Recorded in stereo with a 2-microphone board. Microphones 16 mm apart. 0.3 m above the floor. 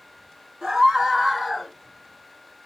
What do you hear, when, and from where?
0.6 s a scream: 40° right (ahead or behind), 1.9 m; by 1.7 s 15° left (ahead or behind), 1.3 m